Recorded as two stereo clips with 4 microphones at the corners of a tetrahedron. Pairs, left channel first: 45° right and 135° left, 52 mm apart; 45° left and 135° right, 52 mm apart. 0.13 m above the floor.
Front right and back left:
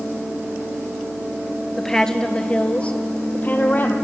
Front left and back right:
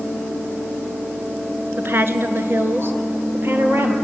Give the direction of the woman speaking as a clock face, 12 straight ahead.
4 o'clock.